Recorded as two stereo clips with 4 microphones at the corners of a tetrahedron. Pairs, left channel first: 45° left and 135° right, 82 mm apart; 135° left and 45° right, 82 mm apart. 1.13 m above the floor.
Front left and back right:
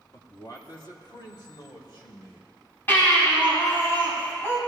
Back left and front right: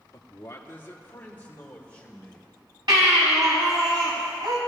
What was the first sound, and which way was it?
A man speaking, 90° left.